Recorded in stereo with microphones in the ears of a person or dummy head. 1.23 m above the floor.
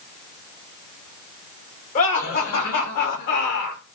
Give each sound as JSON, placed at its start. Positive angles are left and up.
{"t": 1.9, "sound": "laughter", "side_deg": 50, "distance_m": 5.0}